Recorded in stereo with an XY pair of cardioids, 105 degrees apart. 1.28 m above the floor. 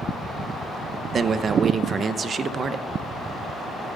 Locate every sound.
1.1 s a man speaking: 45° right, 0.8 m